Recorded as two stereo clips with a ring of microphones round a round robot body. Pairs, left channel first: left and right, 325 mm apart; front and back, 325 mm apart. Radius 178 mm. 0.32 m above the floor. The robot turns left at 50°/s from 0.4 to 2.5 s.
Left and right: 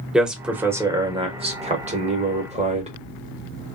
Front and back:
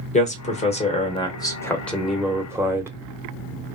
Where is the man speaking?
5° right, 0.9 m; by 2.9 s 110° right, 0.9 m.